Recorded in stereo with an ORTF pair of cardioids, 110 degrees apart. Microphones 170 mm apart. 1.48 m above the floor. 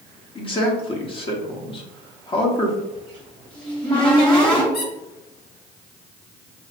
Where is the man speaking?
30° left, 1.0 m.